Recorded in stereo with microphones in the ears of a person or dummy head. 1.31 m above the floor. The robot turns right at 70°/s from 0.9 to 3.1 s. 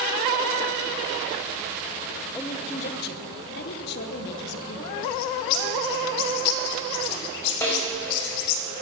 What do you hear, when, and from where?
2.3 s a woman speaking: 5° left, 1.1 m; by 4.9 s 60° left, 1.1 m
5.0 s a bird: 60° left (ahead or behind), 0.9 m
7.6 s a snare drum: 10° left (ahead or behind), 4 m